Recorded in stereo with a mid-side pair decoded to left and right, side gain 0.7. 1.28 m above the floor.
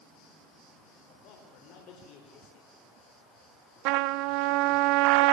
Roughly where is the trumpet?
Right.